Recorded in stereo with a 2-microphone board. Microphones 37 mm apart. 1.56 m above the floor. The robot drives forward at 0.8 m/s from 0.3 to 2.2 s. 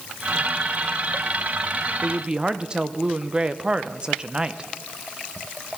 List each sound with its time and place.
2.0 s a woman speaking: 30° right (ahead or behind), 0.6 m; by 4.7 s 25° right (ahead or behind), 0.7 m